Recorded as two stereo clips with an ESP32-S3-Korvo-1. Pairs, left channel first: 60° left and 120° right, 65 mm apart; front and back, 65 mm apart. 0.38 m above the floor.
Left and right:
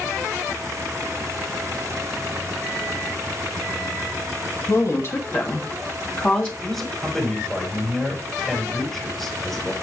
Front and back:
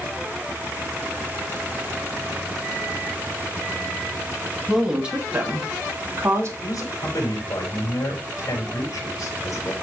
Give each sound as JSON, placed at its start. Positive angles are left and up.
{"t": 4.7, "sound": "a woman speaking", "azimuth_deg": 95, "distance_m": 2.5}
{"t": 6.6, "sound": "a man speaking", "azimuth_deg": -30, "distance_m": 5.0}